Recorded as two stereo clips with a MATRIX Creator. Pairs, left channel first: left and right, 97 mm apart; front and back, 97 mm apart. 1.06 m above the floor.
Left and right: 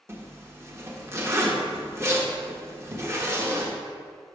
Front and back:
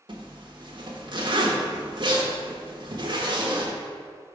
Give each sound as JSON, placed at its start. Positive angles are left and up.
{"t": 0.1, "sound": "a zipper", "azimuth_deg": -150, "distance_m": 0.9}